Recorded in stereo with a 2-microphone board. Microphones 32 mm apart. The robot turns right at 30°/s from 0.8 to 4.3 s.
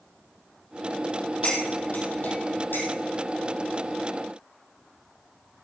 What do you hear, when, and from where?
1.4 s cutlery clinking: 40° left (ahead or behind), 4 m; by 2.9 s 75° left (ahead or behind), 4 m